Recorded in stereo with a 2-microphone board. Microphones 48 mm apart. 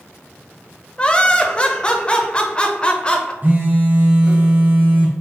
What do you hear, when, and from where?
1.0 s laughter: 20° left (ahead or behind), 0.7 m
3.4 s a phone buzzing: 40° right (ahead or behind), 0.9 m